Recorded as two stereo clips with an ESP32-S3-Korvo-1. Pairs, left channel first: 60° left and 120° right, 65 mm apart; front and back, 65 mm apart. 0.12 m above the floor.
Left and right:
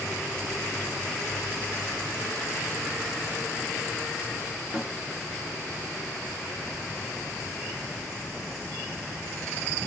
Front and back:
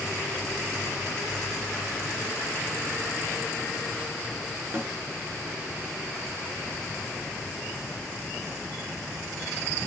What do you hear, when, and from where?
4.7 s a snare drum: 170° left, 1.0 m